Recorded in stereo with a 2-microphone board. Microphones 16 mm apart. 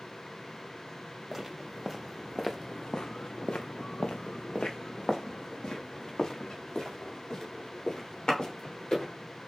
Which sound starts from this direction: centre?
Footsteps, at 1.3 s.